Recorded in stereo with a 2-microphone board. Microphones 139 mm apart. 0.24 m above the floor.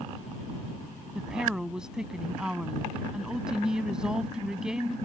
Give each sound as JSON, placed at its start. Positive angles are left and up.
{"t": 1.1, "sound": "a woman speaking", "side_deg": -5}